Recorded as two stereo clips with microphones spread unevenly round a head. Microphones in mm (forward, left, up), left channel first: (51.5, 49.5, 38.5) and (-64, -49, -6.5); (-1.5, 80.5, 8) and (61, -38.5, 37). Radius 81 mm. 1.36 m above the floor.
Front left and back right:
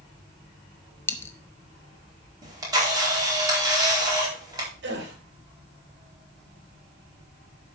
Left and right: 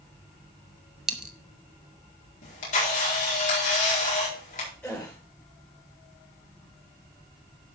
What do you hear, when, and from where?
1.1 s a dropped coin: 5° left, 0.7 m
2.4 s a camera shutter: 155° left, 4.5 m
4.8 s a gasp: 160° right, 3 m